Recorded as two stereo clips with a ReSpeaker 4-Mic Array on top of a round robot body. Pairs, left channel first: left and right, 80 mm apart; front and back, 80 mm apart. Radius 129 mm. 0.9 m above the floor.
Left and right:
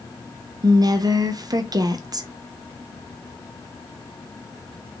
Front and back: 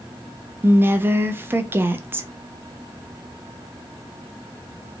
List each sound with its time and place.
0.6 s a woman speaking: 120° right, 0.7 m